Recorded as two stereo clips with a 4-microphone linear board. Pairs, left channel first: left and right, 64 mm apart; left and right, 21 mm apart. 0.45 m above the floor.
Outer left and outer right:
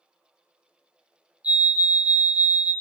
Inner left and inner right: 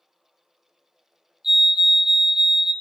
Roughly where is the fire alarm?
Right.